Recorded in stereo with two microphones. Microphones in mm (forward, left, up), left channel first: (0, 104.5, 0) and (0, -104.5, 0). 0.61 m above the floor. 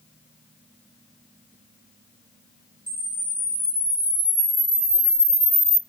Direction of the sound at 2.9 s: 45° right (ahead or behind).